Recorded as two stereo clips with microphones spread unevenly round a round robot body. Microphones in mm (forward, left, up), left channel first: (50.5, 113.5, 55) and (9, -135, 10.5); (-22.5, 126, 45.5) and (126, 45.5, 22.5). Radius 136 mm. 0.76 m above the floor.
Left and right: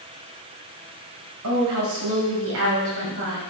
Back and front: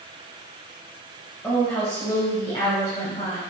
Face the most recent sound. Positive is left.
turn(degrees=-145)